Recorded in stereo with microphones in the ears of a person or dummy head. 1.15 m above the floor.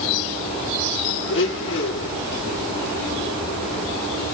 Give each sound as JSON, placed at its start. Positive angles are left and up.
{"t": 1.3, "sound": "a blender", "side_deg": 60, "distance_m": 1.1}